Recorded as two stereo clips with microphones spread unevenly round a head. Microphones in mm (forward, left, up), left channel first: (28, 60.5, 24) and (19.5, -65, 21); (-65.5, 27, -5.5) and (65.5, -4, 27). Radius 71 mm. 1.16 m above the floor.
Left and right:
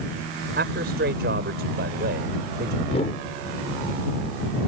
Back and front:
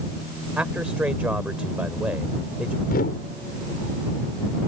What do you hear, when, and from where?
0.6 s a man speaking: 95° right
2.9 s a whoosh: 135° left